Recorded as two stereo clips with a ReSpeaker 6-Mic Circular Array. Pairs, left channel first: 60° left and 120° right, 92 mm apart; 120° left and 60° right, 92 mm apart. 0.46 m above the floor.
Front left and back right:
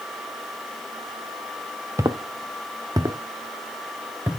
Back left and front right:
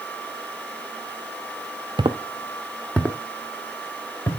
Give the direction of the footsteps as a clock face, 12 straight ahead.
2 o'clock.